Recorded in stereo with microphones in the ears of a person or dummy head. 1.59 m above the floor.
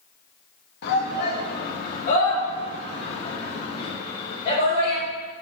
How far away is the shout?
About 3 m.